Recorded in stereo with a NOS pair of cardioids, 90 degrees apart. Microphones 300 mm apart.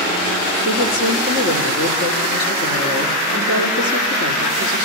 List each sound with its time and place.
0.7 s a woman speaking: 65° left, 4 m